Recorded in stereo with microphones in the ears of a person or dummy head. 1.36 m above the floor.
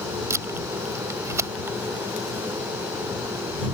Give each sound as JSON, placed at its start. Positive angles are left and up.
{"t": 0.3, "sound": "tape being pulled", "side_deg": -15}